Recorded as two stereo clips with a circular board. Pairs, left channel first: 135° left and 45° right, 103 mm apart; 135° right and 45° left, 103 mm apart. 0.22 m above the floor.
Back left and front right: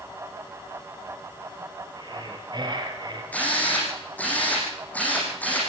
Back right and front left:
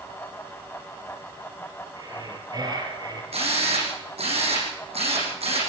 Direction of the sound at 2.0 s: Straight ahead.